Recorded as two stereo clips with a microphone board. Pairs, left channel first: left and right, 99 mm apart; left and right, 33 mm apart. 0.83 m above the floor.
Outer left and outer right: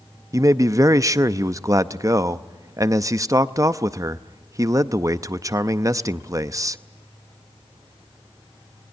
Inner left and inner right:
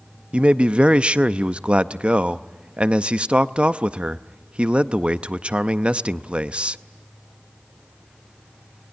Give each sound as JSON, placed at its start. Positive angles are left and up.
{"t": 0.3, "sound": "a man speaking", "side_deg": -35, "distance_m": 0.6}